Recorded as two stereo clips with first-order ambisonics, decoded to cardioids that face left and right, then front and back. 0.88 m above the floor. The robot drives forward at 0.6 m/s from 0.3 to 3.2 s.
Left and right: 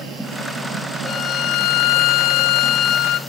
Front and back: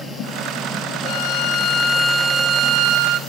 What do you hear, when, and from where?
1.1 s a violin: 35° left, 0.8 m; by 3.2 s 145° left, 0.8 m